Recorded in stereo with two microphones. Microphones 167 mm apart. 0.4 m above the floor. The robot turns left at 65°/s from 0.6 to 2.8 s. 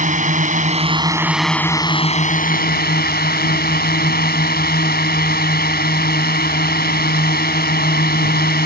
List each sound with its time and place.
0.0 s a drone: 125° right; by 8.7 s 90° left